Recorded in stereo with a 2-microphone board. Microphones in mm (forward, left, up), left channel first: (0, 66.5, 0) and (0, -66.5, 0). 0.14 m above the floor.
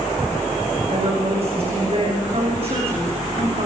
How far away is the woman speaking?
About 10 m.